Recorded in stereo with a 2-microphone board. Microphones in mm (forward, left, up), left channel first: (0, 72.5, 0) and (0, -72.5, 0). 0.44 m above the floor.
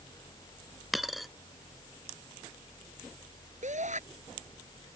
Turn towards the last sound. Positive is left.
turn(degrees=-55)  # may be behind; listen again after turning